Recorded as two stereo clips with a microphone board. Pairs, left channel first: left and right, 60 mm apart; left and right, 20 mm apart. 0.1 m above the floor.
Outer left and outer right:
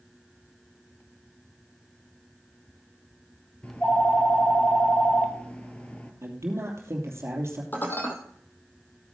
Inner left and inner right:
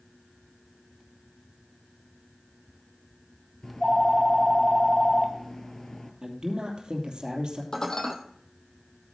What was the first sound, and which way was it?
A phone ringing, 20° left (ahead or behind).